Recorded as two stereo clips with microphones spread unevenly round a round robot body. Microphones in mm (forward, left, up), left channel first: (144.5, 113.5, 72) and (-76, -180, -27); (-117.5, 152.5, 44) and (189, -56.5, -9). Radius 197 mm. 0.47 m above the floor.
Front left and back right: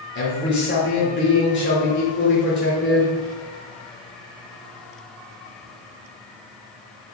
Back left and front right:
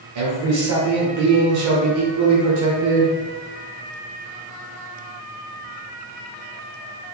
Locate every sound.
0.1 s a man speaking: 15° right, 1.2 m